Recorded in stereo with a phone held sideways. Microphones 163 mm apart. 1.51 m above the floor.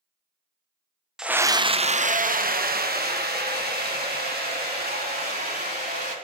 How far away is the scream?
About 0.6 m.